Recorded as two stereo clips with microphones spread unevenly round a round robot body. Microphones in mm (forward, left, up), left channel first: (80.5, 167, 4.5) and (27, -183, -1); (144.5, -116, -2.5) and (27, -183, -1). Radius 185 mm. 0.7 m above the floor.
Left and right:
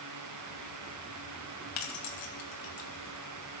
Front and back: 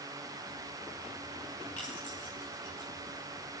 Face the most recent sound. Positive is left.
turn(degrees=95)